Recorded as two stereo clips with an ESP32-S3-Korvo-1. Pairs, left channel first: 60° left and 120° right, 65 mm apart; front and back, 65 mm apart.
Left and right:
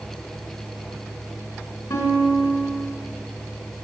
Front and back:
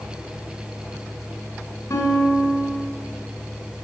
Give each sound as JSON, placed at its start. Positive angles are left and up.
{"t": 1.9, "sound": "a guitar", "azimuth_deg": 40, "distance_m": 3.0}